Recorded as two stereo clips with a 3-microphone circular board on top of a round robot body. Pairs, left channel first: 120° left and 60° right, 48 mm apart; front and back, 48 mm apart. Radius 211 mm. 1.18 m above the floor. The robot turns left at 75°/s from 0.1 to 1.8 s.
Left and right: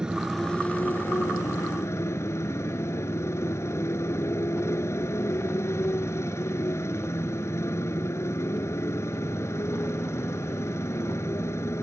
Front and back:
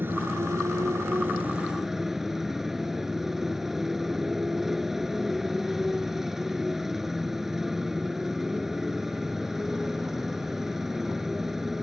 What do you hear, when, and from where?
0.0 s a motorcycle: 135° right; by 11.8 s 100° left